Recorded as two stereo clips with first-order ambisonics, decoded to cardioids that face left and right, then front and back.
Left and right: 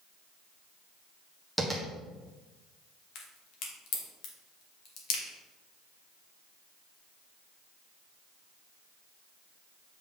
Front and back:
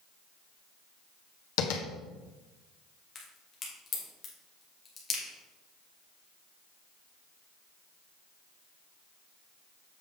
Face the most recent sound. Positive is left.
turn(degrees=65)